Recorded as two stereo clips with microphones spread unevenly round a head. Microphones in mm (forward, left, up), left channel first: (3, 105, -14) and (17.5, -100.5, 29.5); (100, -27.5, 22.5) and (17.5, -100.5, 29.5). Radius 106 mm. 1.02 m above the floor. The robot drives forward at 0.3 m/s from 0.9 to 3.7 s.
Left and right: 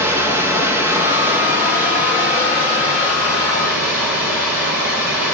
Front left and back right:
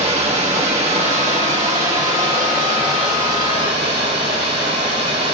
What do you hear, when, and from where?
0.0 s running water: 170° right, 1.0 m; by 5.3 s 175° right, 1.8 m